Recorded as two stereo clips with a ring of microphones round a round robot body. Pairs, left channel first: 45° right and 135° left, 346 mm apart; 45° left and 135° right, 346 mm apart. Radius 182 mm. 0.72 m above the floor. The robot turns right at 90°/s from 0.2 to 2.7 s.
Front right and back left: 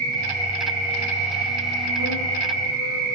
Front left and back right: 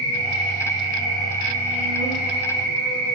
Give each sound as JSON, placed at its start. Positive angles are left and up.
{"t": 0.0, "sound": "an insect", "azimuth_deg": -135, "distance_m": 2.0}